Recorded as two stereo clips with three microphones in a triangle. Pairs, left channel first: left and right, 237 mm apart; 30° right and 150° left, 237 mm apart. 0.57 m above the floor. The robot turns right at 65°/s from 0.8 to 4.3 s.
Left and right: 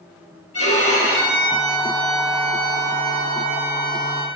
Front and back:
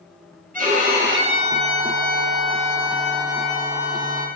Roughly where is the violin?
Left.